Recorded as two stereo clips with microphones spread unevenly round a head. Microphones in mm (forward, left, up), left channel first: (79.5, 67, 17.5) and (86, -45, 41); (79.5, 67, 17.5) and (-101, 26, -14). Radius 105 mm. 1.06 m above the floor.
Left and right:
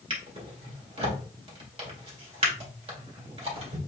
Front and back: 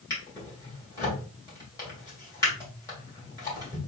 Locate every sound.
0.1 s a drawer: 60° right, 1.8 m